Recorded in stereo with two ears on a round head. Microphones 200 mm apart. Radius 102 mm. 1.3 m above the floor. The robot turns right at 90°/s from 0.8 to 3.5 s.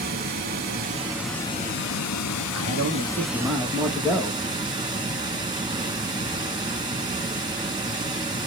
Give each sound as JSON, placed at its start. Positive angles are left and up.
{"t": 0.0, "sound": "running water", "azimuth_deg": -40, "distance_m": 1.2}
{"t": 2.5, "sound": "a man speaking", "azimuth_deg": -90, "distance_m": 1.4}